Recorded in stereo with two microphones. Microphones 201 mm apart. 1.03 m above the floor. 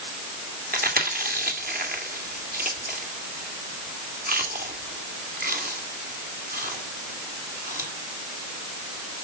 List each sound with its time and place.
0.7 s chewing: 45° right (ahead or behind), 2.5 m